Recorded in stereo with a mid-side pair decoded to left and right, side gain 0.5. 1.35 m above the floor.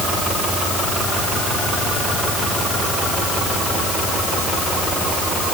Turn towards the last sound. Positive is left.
No sound to turn to.